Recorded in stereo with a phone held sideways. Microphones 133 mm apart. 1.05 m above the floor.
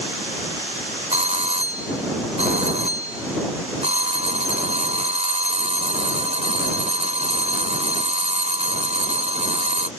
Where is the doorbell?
55° right (ahead or behind).